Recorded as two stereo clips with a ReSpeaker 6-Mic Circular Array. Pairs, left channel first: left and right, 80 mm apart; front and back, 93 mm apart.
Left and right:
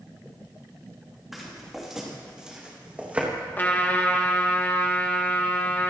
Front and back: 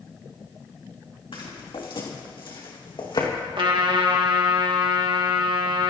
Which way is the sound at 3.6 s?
155° left.